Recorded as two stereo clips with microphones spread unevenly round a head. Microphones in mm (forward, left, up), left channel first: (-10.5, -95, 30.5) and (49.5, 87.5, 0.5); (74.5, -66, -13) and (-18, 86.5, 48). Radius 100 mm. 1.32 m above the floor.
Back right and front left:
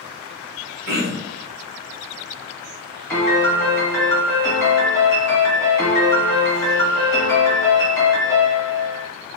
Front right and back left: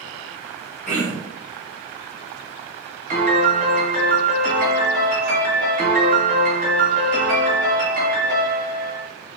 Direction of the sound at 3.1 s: 170° left.